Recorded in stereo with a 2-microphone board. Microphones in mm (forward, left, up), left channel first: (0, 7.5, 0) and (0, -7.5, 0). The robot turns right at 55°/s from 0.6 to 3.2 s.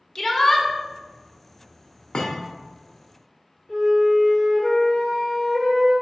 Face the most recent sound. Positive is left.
turn(degrees=75)  # may be behind; listen again after turning